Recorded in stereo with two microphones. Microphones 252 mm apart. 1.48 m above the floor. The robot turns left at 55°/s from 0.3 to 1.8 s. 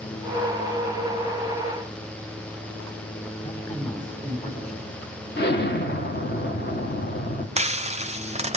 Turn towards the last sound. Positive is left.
turn(degrees=-25)  # may be behind; listen again after turning